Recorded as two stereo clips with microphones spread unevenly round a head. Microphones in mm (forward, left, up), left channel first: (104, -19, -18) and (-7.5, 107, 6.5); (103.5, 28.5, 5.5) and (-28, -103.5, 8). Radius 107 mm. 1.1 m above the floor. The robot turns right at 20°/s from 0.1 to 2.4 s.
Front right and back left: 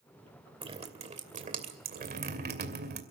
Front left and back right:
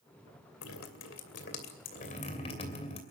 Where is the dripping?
75° left, 2.5 m; by 3.0 s 110° left, 2.5 m.